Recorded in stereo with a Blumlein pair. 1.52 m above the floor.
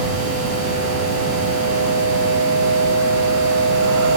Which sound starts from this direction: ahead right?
A machine running, at 0.0 s.